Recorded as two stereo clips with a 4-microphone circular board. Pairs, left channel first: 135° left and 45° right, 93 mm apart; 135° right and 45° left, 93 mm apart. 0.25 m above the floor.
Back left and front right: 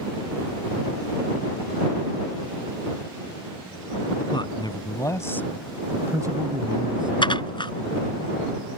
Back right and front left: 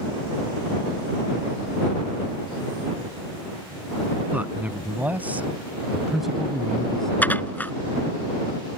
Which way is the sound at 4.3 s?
115° left.